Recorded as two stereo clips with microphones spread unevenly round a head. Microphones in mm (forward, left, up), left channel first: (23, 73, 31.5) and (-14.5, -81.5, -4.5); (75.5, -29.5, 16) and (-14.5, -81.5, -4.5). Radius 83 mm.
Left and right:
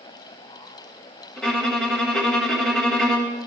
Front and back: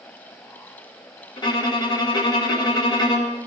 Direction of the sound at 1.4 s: 5° right.